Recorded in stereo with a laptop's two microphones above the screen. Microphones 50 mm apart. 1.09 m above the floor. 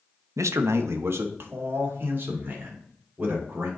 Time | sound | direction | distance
0.4 | a man speaking | 85° right | 0.6 m